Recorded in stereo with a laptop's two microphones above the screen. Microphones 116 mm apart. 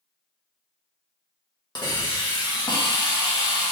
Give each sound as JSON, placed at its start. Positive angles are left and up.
{"t": 1.8, "sound": "a hiss", "side_deg": 40, "distance_m": 1.2}